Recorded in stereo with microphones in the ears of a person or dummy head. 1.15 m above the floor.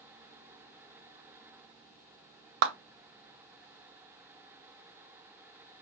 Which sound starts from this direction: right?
A clap, at 2.6 s.